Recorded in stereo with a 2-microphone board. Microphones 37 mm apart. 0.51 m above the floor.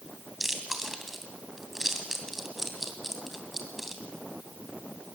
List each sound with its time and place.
0.4 s chewing: 5° right (ahead or behind), 2.5 m